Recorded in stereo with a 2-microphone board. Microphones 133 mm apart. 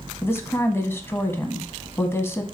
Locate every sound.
0.2 s a woman speaking: 20° left (ahead or behind), 1.0 m